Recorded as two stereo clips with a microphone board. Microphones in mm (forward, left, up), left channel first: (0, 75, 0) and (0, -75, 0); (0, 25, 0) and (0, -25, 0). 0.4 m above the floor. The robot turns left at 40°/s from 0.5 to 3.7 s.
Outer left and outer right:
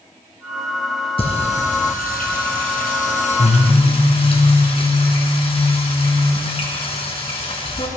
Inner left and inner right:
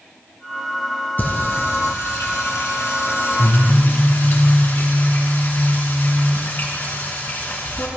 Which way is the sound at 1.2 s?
140° left.